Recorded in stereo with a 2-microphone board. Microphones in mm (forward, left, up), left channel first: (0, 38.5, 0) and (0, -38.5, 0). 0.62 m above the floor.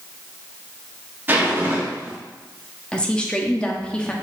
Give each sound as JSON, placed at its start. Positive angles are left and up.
{"t": 1.3, "sound": "a zipper", "side_deg": -25, "distance_m": 1.0}
{"t": 2.9, "sound": "a woman speaking", "side_deg": 10, "distance_m": 0.7}